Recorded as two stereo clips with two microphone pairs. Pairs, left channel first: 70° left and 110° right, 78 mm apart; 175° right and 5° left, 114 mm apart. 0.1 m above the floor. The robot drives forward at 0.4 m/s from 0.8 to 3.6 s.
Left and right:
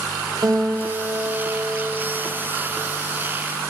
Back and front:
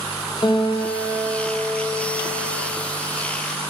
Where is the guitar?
135° right, 0.8 m; by 2.7 s 155° right, 1.4 m.